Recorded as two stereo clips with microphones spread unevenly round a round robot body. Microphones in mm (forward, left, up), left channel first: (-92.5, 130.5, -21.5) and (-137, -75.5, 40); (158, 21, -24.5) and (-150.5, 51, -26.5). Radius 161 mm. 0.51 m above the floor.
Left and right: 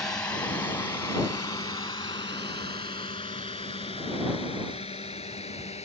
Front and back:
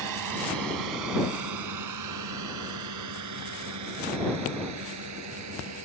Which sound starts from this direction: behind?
A drone, at 0.0 s.